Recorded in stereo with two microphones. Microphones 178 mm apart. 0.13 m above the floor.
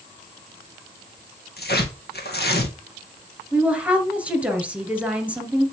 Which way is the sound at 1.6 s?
75° left (ahead or behind).